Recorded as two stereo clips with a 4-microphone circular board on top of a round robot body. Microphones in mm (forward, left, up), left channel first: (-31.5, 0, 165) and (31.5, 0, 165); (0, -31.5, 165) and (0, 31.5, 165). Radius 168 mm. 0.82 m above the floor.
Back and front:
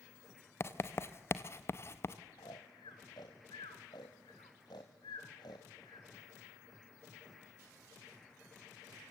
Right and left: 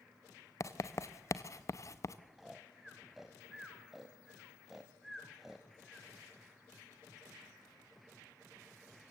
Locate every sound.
0.6 s writing: 130° right, 1.1 m
2.4 s snoring: 175° left, 0.7 m